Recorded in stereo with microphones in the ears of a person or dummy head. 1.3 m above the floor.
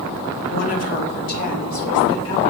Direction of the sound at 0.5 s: 45° left (ahead or behind).